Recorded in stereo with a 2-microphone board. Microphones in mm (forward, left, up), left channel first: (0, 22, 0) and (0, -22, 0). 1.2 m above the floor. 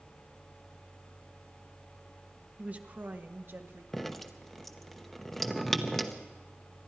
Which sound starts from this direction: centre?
Dripping, at 3.9 s.